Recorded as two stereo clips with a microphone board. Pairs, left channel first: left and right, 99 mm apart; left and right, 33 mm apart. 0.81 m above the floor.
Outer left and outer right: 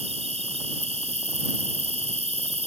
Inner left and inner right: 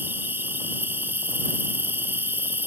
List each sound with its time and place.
0.0 s an insect: 70° right (ahead or behind)